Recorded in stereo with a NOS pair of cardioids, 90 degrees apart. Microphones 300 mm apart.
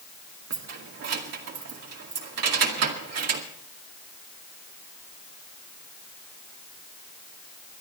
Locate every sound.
0.5 s keys jangling: 55° right, 2 m